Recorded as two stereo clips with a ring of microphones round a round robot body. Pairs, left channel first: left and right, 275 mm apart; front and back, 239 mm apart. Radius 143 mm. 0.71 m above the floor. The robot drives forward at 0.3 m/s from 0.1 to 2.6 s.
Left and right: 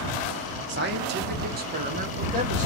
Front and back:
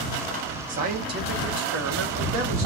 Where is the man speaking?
130° right, 0.9 m; by 2.7 s 150° right, 1.3 m.